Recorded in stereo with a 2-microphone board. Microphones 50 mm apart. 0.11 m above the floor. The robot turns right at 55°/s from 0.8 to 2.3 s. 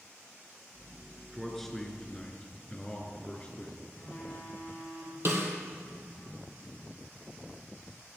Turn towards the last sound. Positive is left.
turn(degrees=-55)  # may be behind; listen again after turning